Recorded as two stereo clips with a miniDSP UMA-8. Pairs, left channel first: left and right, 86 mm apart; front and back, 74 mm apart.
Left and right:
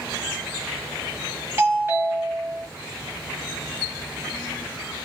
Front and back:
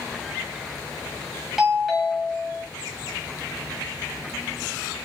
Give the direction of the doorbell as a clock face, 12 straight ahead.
3 o'clock.